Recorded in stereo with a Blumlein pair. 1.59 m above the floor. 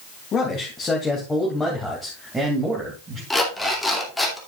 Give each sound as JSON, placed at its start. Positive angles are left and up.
{"t": 0.3, "sound": "a man speaking", "azimuth_deg": 20, "distance_m": 3.0}
{"t": 3.3, "sound": "an alarm clock", "azimuth_deg": 5, "distance_m": 2.5}